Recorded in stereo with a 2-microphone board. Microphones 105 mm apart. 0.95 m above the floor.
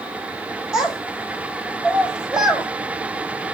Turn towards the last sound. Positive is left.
turn(degrees=-5)  # may be behind; listen again after turning